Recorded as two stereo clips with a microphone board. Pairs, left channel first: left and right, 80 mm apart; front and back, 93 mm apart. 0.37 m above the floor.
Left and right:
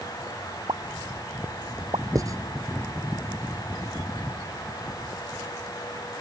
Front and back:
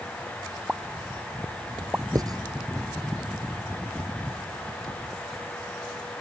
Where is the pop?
105° right.